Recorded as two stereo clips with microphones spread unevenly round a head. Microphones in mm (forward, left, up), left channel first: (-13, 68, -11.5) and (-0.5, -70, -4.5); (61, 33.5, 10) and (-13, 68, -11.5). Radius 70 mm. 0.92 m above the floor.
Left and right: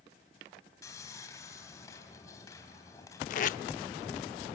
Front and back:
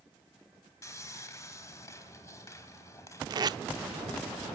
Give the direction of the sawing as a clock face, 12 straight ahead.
11 o'clock.